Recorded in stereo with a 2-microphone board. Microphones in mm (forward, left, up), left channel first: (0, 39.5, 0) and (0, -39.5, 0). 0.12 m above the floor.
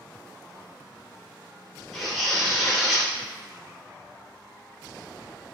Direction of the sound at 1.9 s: Centre (ahead or behind).